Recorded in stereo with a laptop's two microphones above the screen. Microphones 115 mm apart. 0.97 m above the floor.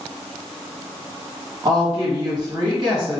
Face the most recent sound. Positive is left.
turn(degrees=-40)  # may be behind; listen again after turning